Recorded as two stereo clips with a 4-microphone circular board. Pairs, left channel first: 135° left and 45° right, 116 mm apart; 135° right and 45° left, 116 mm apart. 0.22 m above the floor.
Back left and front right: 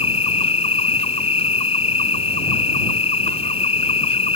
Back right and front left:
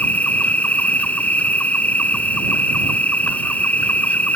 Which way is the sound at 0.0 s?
150° left.